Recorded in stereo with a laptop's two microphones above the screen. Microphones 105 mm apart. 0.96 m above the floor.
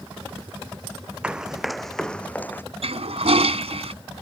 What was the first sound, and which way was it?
Running footsteps, 10° right (ahead or behind).